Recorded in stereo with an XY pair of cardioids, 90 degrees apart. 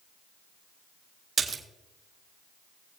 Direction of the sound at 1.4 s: 45° right.